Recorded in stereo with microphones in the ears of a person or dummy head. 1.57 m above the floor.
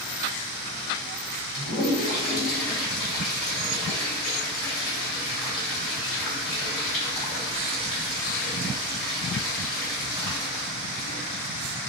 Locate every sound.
1.5 s a toilet flushing: 40° left (ahead or behind), 1.7 m